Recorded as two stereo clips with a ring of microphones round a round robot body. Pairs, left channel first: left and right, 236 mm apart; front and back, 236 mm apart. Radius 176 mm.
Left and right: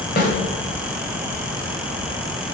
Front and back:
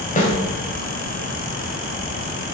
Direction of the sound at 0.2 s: 50° left.